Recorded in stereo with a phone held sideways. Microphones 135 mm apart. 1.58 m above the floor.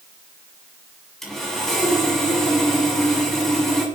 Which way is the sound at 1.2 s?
5° left (ahead or behind).